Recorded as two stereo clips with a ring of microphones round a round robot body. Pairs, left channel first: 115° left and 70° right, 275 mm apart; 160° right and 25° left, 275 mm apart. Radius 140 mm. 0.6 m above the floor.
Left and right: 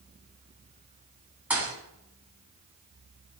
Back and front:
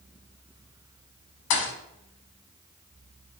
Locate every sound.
1.5 s a thud: 150° right, 1.1 m